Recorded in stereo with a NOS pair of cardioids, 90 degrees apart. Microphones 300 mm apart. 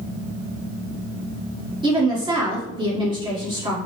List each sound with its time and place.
1.8 s a woman speaking: 15° right, 1.6 m